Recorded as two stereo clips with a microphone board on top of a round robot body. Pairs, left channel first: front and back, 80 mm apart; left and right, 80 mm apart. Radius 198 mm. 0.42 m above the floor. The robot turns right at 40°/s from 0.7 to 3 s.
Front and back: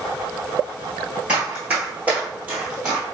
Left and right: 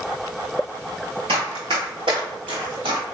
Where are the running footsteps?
105° right, 0.7 m; by 3.0 s 100° right, 1.0 m.